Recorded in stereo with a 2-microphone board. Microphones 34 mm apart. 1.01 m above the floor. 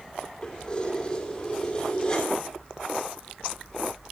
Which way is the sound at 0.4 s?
20° left (ahead or behind).